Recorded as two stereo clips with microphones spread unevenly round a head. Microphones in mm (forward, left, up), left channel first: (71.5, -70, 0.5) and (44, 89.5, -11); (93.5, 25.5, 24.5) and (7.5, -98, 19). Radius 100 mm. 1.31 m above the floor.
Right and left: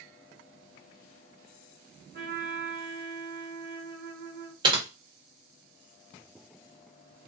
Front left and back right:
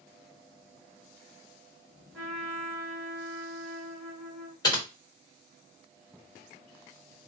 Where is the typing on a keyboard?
75° left, 1.0 m.